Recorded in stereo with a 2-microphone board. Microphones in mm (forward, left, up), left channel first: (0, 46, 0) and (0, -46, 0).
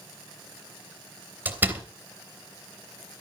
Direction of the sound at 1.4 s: 20° right (ahead or behind).